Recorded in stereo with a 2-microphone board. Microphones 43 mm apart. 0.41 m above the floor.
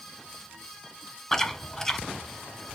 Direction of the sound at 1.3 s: 10° left (ahead or behind).